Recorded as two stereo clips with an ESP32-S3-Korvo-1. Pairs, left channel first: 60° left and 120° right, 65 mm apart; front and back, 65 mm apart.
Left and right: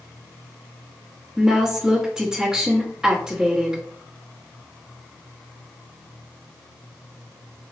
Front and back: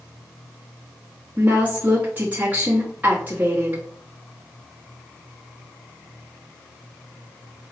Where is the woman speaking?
175° left, 1.1 m.